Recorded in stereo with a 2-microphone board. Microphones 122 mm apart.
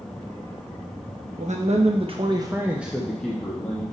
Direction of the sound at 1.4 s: 75° right (ahead or behind).